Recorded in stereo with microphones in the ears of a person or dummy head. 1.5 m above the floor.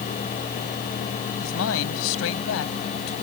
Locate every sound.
1.4 s a man speaking: 80° left